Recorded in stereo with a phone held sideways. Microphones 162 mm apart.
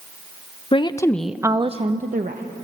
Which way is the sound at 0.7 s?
35° left (ahead or behind).